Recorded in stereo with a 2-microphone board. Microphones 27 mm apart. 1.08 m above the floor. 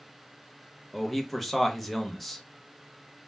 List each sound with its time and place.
0.9 s a man speaking: centre (ahead or behind), 0.6 m